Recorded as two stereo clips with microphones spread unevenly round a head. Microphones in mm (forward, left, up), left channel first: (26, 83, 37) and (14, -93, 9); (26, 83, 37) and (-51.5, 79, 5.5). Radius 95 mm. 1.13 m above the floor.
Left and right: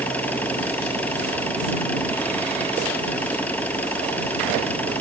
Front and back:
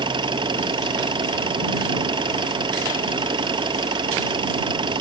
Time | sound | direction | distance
0.0 | an engine running | 170° left | ?